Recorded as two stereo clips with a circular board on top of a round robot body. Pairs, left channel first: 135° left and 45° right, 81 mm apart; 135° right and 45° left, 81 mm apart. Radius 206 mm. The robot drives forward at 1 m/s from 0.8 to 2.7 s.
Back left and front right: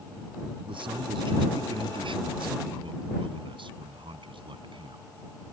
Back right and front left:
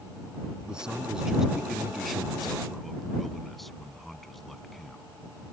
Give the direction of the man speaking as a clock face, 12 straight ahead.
1 o'clock.